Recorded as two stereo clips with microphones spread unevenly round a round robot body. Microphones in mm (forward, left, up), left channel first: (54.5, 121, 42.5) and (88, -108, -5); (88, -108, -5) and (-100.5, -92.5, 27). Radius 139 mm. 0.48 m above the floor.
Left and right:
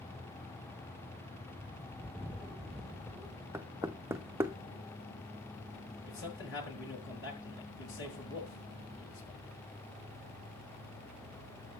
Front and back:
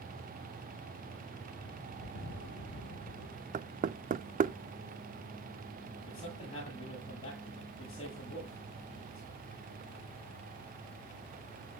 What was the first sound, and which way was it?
A bird, 15° left.